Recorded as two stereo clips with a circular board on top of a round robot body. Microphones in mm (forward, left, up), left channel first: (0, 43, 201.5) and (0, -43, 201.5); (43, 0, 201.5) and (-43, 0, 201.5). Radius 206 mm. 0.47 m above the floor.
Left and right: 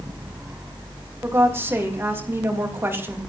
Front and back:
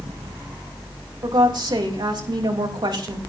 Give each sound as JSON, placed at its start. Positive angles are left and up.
{"t": 1.2, "sound": "a woman speaking", "azimuth_deg": -150, "distance_m": 3.5}